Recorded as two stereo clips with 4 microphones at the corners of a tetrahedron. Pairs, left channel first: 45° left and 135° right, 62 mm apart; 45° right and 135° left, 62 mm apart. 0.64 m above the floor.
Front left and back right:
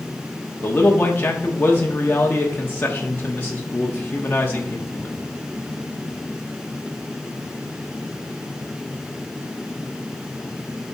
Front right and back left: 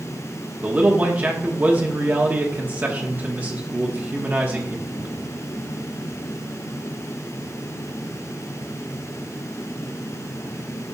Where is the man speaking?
90° left, 1.1 m.